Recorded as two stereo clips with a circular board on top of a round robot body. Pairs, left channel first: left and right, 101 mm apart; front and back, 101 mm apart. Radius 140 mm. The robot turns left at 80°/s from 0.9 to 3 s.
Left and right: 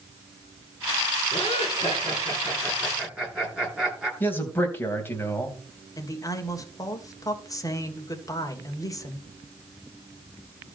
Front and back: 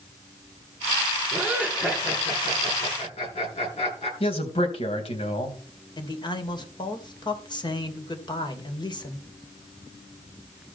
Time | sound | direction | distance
1.3 | laughter | 125° left | 8 m
4.2 | a man speaking | 20° left | 3.5 m
6.0 | a man speaking | 40° left | 2.5 m